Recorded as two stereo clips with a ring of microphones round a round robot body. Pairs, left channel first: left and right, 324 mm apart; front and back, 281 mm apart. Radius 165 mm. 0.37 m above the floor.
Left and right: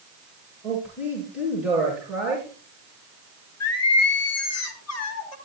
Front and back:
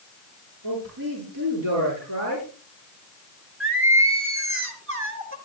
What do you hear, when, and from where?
0.6 s a man speaking: 175° right, 9 m
3.6 s singing: 135° left, 4 m